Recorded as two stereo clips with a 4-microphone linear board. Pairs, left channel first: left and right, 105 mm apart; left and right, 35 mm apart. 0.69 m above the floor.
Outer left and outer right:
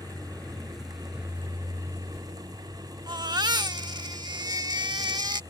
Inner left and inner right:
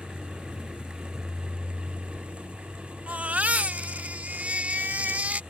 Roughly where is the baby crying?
Right.